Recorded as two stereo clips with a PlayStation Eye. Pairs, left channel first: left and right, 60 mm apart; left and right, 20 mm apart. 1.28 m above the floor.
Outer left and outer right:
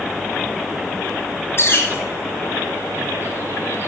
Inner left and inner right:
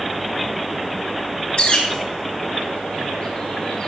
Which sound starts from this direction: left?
A bird, at 1.6 s.